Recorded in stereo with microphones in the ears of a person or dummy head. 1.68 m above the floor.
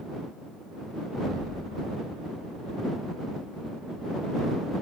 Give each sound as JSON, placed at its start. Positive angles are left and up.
{"t": 1.1, "sound": "an explosion", "side_deg": -25}